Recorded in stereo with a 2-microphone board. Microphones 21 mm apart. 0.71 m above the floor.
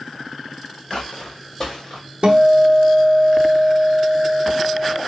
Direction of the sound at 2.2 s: 65° right (ahead or behind).